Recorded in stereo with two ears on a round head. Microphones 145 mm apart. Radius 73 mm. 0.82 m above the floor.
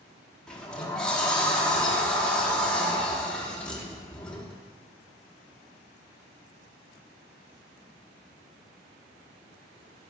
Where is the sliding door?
5° left (ahead or behind), 1.0 m.